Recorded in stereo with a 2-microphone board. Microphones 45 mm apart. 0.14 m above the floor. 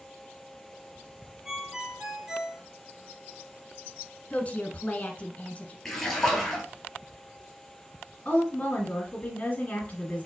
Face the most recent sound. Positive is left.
turn(degrees=30)  # may be behind; listen again after turning